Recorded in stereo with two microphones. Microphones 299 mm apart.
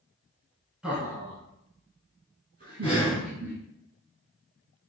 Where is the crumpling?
I don't hear crumpling.